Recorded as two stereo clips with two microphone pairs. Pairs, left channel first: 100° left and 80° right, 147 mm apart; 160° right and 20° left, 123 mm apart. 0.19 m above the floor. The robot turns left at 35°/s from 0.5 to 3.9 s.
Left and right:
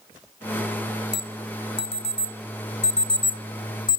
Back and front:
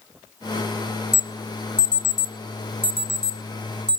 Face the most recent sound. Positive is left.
turn(degrees=55)